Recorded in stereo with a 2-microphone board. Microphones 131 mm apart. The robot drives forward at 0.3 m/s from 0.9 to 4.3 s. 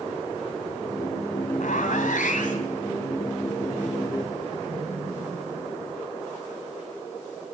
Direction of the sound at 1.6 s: 75° left (ahead or behind).